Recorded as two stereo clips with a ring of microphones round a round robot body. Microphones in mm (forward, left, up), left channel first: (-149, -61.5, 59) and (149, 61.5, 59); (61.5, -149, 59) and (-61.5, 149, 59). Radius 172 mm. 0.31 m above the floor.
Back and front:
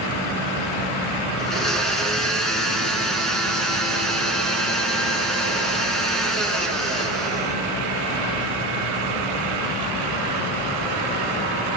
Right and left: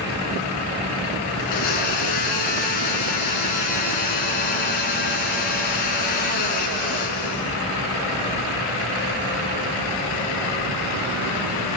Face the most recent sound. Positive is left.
turn(degrees=-70)